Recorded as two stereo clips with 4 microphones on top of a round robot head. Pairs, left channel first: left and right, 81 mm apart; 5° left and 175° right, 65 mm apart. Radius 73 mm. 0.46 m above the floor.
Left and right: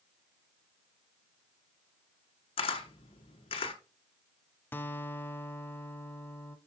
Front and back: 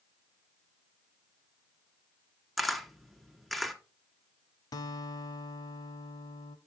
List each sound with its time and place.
2.6 s a camera shutter: 95° left, 1.5 m
4.7 s a guitar: 25° left, 0.6 m